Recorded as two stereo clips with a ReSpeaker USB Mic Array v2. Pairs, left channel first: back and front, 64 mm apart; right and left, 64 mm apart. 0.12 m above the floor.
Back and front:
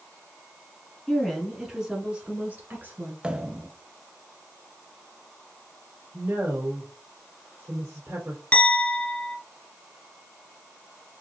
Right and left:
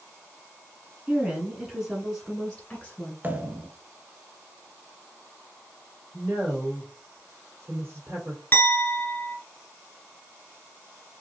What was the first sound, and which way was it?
A woman speaking, 120° left.